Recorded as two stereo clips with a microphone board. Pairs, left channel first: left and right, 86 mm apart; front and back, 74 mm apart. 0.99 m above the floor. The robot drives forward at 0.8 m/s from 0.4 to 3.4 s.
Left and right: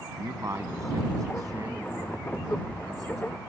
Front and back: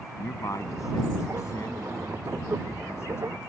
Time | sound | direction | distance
0.2 | a man speaking | 40° right | ?